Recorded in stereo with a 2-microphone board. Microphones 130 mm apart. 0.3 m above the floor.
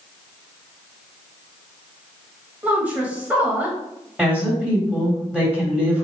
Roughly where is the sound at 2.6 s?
Centre.